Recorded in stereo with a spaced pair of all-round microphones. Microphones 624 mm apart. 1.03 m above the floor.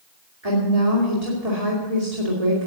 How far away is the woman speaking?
About 3 m.